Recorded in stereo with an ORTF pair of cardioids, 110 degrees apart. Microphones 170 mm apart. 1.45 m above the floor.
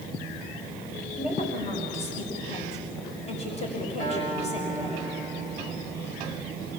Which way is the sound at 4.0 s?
50° left.